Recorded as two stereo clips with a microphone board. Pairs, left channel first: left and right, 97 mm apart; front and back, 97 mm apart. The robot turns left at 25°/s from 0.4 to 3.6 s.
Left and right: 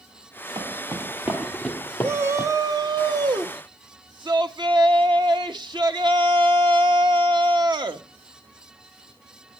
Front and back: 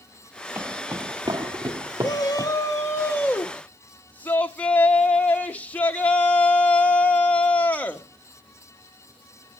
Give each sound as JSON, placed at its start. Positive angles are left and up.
{"t": 0.6, "sound": "footsteps", "azimuth_deg": -120, "distance_m": 1.6}
{"t": 2.0, "sound": "a shout", "azimuth_deg": -30, "distance_m": 1.4}